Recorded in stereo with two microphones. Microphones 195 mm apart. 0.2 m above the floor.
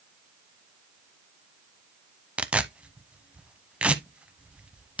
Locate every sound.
2.4 s tearing paper: 5° right (ahead or behind), 0.7 m